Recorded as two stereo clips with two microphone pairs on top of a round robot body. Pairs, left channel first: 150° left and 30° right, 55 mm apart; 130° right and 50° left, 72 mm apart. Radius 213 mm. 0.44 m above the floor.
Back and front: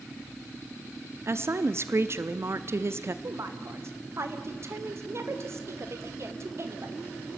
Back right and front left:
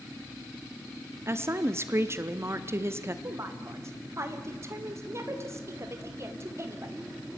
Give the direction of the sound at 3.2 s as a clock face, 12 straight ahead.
12 o'clock.